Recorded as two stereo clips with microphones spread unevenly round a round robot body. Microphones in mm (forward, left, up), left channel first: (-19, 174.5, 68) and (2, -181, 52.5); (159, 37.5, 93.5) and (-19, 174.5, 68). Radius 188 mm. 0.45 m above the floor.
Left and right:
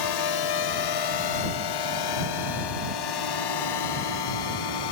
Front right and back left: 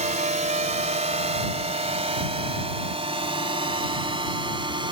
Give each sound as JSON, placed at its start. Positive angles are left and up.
{"t": 0.0, "sound": "a drone", "azimuth_deg": 90}